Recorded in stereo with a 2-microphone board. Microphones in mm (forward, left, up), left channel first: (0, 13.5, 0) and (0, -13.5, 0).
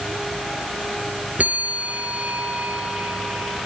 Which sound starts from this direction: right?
A bell, at 1.4 s.